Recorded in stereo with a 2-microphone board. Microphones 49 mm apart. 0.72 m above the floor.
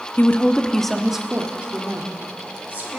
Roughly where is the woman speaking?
Left.